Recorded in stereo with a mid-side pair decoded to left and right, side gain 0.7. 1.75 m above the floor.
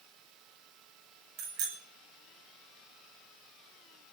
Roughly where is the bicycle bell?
Ahead right.